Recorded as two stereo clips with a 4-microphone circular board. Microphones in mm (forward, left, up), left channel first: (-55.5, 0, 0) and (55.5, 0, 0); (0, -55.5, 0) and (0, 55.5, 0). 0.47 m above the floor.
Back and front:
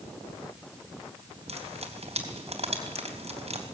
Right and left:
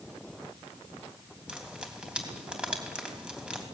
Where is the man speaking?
I don't hear a man speaking.